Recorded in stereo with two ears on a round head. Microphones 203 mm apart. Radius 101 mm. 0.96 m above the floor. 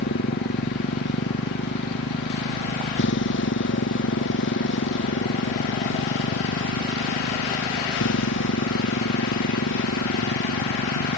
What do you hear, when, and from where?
0.0 s a motorcycle: 50° left (ahead or behind); by 11.2 s 60° left (ahead or behind)